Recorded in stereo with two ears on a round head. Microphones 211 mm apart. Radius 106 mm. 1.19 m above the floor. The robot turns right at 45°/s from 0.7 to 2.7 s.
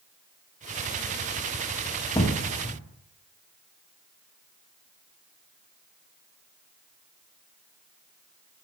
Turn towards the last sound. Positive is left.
turn(degrees=35)  # may be behind; listen again after turning